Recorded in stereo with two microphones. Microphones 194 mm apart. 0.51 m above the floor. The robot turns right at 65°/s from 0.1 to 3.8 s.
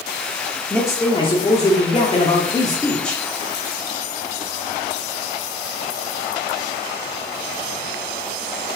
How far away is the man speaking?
About 0.9 m.